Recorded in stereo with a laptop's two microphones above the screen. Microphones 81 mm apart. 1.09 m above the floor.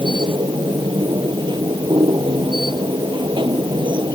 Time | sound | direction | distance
0.0 | a machine running | 75° right (ahead or behind) | ?